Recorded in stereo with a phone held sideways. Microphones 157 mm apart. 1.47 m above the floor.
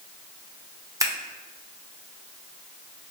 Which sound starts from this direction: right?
Scissors, at 1.0 s.